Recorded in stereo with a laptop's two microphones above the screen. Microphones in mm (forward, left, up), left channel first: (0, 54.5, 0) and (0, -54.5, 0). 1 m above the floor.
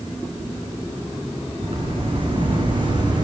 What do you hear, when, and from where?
1.6 s footsteps: 55° right (ahead or behind), 4 m; by 3.2 s 40° right (ahead or behind), 4 m